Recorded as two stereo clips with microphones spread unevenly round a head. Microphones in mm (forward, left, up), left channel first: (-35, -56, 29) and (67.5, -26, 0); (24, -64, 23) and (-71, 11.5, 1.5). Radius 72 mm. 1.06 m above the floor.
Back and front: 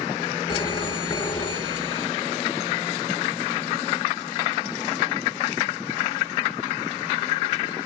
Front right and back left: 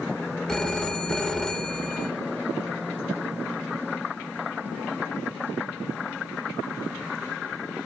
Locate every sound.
0.5 s a phone ringing: 120° right, 3 m